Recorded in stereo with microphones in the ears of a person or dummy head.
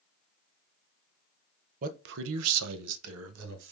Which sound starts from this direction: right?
A man speaking, at 1.8 s.